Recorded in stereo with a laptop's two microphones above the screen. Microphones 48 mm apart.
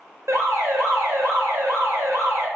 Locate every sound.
0.3 s an alarm: 75° right (ahead or behind), 0.8 m